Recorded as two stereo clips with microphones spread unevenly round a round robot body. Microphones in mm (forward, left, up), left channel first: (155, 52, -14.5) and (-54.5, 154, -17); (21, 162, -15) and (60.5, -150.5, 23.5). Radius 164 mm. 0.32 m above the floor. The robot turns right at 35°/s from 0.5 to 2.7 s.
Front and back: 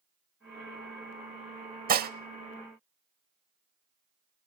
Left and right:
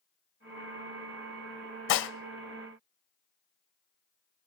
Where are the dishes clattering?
120° left, 0.8 m; by 2.1 s 125° left, 0.8 m.